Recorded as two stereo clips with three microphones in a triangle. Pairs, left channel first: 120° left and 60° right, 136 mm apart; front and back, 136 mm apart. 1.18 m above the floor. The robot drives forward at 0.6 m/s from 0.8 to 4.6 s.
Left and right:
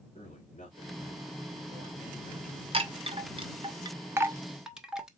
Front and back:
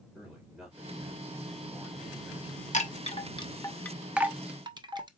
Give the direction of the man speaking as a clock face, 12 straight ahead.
9 o'clock.